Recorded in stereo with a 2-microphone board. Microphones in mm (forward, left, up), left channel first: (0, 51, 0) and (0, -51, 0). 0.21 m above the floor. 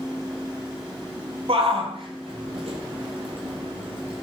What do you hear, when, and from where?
1.5 s a shout: 70° right (ahead or behind), 5.5 m; by 4.2 s 65° right (ahead or behind), 8 m